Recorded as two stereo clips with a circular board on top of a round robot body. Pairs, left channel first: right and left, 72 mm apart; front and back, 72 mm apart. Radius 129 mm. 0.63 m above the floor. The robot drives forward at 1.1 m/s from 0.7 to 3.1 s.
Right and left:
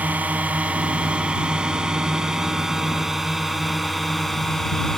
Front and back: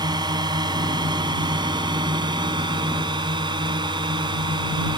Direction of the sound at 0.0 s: 160° left.